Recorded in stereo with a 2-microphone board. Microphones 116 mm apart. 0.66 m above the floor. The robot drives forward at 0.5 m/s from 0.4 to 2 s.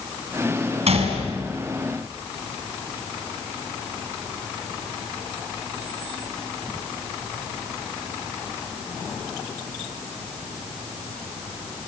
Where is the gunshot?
70° right (ahead or behind), 5.5 m.